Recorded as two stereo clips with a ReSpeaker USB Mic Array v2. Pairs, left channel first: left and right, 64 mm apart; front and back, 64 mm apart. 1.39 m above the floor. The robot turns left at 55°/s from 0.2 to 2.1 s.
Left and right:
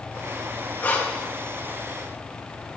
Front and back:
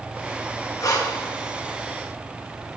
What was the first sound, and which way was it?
Breathing, 30° left.